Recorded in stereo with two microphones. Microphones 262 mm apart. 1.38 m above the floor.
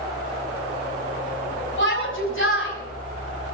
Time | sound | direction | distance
1.8 | a shout | 50° left (ahead or behind) | 8 m